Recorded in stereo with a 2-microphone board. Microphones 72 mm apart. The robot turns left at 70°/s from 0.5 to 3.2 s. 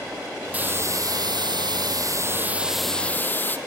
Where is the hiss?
20° right, 0.7 m; by 3.6 s 155° left, 0.7 m.